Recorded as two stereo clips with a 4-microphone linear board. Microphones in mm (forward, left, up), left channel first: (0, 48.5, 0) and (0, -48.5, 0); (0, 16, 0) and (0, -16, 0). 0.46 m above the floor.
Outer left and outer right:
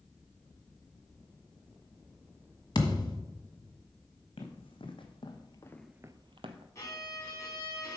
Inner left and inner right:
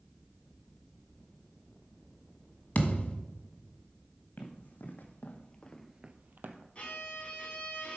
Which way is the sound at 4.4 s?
65° left (ahead or behind).